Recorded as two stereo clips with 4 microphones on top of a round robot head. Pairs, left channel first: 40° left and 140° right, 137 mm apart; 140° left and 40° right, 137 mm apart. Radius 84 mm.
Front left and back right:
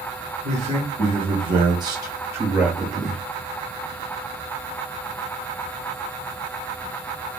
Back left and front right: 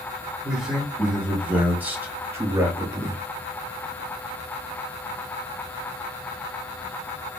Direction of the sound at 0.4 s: 125° right.